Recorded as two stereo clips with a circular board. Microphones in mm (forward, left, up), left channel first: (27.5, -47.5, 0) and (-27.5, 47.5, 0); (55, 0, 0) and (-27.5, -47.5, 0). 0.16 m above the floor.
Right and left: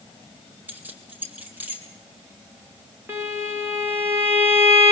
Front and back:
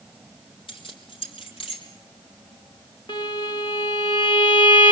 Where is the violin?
55° left, 2.5 m.